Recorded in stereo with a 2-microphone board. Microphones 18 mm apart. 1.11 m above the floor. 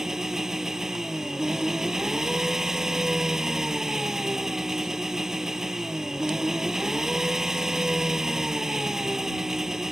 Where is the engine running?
25° right (ahead or behind).